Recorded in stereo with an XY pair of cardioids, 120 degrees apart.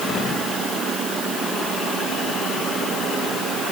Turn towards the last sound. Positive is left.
No sound to turn to.